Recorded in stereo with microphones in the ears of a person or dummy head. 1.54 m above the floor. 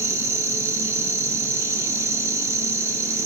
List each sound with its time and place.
0.0 s an insect: 15° right (ahead or behind), 0.7 m